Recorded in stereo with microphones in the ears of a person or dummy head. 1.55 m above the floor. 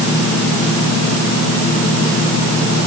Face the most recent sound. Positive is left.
No sound to turn to.